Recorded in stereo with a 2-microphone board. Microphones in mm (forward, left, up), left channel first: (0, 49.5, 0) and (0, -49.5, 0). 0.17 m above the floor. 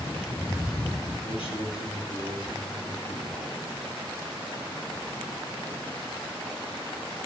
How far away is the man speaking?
About 5.5 m.